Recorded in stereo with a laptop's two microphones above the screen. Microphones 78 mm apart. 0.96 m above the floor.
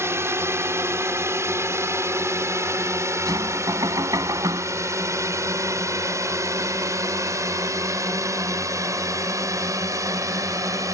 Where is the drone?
35° right (ahead or behind); by 10.9 s 45° right (ahead or behind).